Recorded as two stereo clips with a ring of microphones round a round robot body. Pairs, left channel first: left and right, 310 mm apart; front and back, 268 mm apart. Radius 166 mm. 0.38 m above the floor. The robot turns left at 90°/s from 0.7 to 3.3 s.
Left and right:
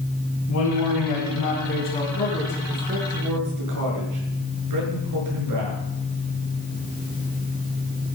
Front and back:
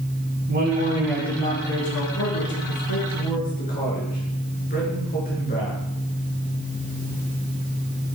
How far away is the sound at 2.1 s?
About 6.5 m.